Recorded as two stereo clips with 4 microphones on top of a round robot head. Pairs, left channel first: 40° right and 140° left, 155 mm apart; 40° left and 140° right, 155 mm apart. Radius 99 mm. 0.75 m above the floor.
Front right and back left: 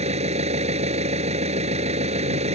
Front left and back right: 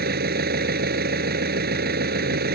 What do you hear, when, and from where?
0.0 s an engine running: 165° right